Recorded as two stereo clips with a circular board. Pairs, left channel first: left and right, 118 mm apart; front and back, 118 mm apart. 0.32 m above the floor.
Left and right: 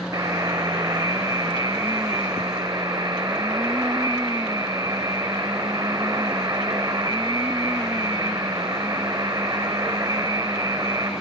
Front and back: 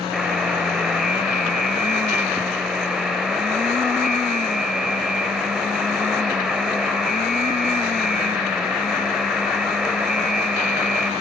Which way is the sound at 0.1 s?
95° right.